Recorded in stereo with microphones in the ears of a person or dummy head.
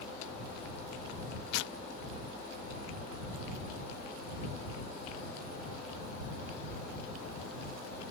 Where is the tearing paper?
70° left (ahead or behind).